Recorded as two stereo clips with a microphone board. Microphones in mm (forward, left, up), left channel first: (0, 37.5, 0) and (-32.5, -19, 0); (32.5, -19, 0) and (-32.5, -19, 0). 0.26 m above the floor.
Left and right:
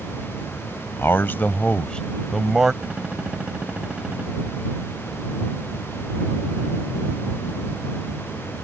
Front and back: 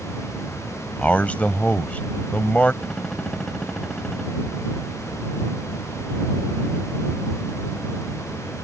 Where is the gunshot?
70° right.